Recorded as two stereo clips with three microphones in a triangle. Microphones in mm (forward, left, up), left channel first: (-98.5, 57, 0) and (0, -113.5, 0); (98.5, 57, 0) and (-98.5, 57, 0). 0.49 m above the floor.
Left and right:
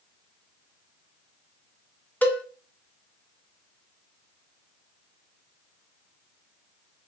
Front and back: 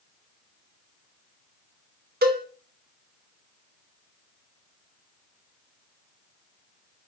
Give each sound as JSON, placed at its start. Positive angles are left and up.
{"t": 2.2, "sound": "a cowbell", "azimuth_deg": -160, "distance_m": 0.6}